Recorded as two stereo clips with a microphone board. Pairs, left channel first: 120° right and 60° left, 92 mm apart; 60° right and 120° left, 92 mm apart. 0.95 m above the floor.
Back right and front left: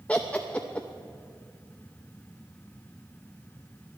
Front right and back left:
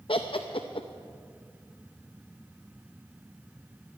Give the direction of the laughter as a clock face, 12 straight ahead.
1 o'clock.